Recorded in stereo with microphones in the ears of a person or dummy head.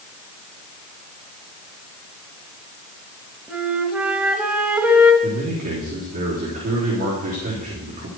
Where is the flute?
5° right (ahead or behind), 0.9 m.